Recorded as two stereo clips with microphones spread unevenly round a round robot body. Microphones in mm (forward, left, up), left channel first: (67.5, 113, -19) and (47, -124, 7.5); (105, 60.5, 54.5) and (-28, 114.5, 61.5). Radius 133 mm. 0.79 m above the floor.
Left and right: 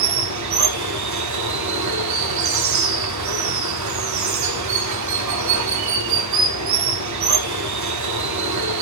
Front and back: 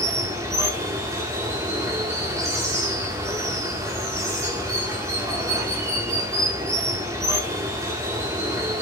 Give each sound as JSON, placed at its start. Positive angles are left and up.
{"t": 0.0, "sound": "running water", "azimuth_deg": -125, "distance_m": 1.4}